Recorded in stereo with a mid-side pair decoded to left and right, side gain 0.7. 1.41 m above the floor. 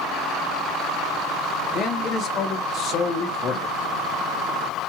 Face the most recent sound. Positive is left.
turn(degrees=40)